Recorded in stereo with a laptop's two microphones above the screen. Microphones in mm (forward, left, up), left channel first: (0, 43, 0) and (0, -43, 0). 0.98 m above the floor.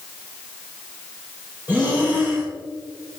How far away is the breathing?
About 3.5 m.